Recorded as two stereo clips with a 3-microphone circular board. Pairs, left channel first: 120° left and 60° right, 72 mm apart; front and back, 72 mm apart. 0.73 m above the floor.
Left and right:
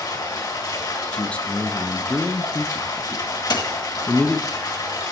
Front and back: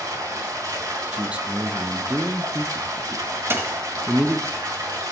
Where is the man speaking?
150° left, 0.5 m.